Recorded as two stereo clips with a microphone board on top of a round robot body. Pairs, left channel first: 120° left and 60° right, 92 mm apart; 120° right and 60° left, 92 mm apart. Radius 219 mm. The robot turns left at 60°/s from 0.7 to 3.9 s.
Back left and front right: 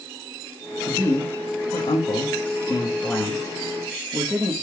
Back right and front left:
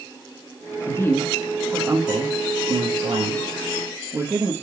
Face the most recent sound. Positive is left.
turn(degrees=5)